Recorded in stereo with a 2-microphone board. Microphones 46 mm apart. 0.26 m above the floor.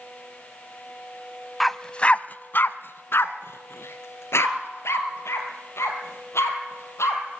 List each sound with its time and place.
1.6 s a dog barking: centre (ahead or behind), 0.6 m; by 7.2 s 85° left, 4 m